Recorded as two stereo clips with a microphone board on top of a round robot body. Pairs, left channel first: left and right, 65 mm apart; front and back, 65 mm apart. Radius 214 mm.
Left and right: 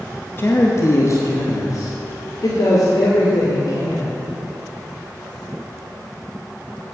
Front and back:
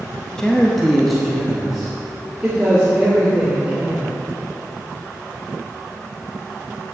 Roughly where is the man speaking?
Left.